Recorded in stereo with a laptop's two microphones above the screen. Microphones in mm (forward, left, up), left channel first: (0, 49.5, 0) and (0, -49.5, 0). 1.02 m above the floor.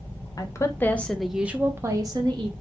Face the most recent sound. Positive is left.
turn(degrees=-50)  # may be behind; listen again after turning